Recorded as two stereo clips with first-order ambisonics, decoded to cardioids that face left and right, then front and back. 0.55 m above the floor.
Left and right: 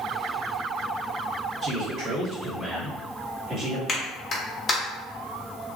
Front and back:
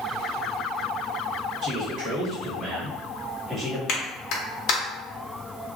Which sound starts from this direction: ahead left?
A clap, at 3.9 s.